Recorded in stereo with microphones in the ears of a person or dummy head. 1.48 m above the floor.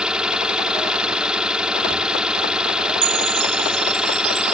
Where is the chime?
85° right.